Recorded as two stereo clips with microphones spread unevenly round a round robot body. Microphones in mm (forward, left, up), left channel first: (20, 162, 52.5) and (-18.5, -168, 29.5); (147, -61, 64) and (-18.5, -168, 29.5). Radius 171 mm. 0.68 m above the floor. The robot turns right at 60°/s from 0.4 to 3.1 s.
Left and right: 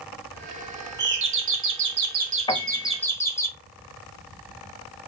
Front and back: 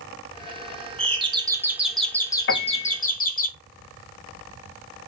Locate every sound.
1.0 s a doorbell: 125° right, 1.2 m; by 3.5 s straight ahead, 1.2 m
2.5 s a piano: 5° left, 0.8 m; by 3.0 s 35° left, 0.8 m